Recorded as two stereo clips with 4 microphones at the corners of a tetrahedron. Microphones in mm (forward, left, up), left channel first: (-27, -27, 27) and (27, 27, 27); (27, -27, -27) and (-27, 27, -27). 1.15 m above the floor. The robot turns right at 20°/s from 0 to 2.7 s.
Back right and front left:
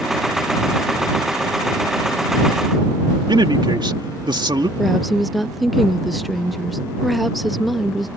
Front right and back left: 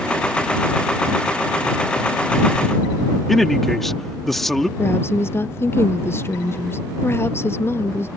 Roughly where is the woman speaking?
Ahead right.